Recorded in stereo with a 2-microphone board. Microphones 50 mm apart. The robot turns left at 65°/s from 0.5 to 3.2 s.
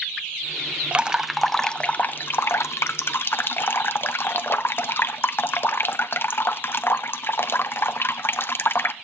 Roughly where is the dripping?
Behind right.